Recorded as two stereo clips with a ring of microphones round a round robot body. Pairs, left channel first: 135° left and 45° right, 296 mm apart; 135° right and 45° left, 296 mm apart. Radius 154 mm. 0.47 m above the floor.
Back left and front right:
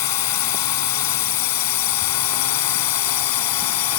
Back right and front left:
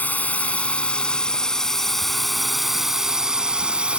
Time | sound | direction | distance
0.0 | a drone | 140° left | ?